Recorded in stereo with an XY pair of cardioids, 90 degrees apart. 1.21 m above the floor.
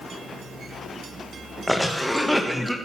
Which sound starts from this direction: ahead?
A cough, at 1.7 s.